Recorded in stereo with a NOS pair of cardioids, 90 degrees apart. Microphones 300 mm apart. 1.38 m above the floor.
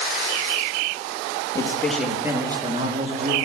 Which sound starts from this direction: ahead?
A man speaking, at 1.6 s.